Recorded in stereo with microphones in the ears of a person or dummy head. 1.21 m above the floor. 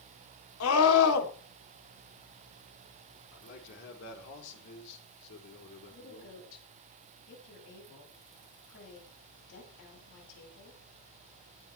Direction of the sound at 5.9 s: 70° left (ahead or behind).